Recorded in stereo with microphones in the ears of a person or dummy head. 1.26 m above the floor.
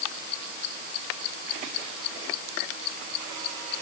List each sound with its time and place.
Only background noise.